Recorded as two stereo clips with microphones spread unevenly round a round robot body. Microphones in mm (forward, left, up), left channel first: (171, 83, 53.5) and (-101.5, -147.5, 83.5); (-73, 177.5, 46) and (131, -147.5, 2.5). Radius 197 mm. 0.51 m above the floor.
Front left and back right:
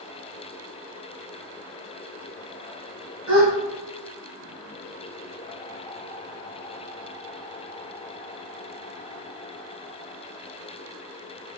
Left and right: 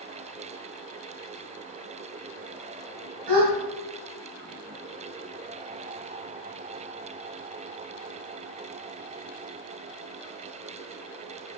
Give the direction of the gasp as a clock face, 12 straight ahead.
3 o'clock.